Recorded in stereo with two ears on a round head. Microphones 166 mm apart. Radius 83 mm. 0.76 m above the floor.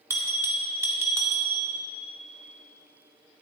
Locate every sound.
0.1 s a bell: 15° right (ahead or behind), 2.5 m